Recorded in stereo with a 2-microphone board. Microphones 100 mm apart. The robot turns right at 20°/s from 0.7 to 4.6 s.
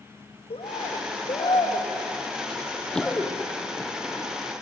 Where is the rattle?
I don't hear a rattle.